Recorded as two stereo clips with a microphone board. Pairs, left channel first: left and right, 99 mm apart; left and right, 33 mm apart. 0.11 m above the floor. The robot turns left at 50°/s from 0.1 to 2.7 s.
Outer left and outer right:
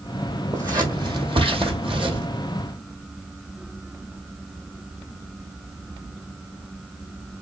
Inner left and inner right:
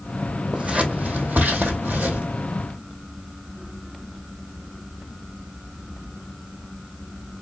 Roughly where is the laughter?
No laughter in this recording.